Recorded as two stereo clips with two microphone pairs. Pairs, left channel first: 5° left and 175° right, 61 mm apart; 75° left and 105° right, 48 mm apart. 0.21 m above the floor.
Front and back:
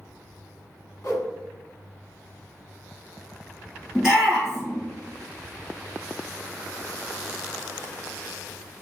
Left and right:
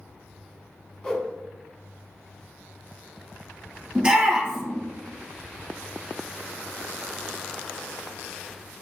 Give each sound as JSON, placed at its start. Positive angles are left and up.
{"t": 1.0, "sound": "a whoosh", "azimuth_deg": 10, "distance_m": 0.8}
{"t": 4.0, "sound": "a shout", "azimuth_deg": -100, "distance_m": 1.5}